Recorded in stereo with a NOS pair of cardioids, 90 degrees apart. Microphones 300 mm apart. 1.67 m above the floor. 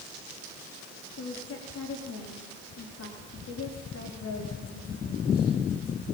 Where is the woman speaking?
55° left, 4.5 m.